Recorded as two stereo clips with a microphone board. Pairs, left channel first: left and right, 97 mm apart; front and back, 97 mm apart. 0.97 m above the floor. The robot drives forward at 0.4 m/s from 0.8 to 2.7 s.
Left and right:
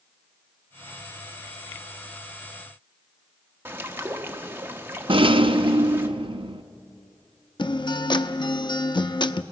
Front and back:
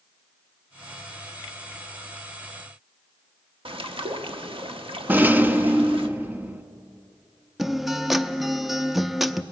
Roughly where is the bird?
Behind right.